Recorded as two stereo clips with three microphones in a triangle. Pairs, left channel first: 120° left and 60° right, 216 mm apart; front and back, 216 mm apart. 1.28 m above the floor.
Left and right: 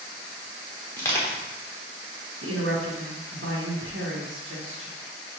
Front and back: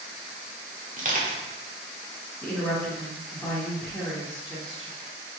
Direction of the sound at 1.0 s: 170° right.